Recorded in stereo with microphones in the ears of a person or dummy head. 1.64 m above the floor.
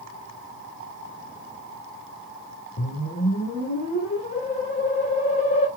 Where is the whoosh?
45° left (ahead or behind), 2.5 m.